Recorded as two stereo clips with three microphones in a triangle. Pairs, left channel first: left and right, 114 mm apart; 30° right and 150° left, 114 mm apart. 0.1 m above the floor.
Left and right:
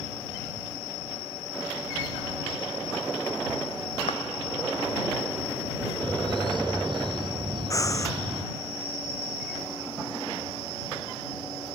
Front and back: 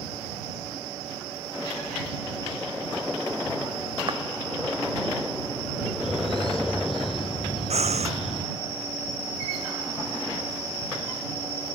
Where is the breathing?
150° left.